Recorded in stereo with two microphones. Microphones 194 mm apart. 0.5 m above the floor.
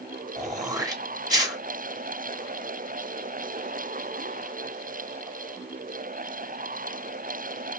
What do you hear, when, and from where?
0.4 s throat clearing: 20° right (ahead or behind), 0.8 m